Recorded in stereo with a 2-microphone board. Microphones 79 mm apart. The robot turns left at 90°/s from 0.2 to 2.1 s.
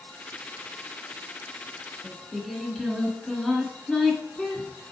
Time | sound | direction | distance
2.0 | singing | 5° left (ahead or behind) | 1.5 m